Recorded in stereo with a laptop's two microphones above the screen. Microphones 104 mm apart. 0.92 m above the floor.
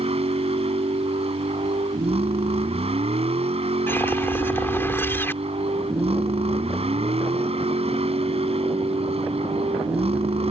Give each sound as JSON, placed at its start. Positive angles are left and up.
{"t": 0.0, "sound": "a vehicle", "side_deg": -80}
{"t": 3.9, "sound": "a whoosh", "side_deg": 25}